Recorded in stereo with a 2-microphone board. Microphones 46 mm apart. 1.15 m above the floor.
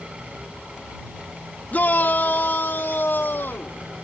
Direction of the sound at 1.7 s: 35° left (ahead or behind).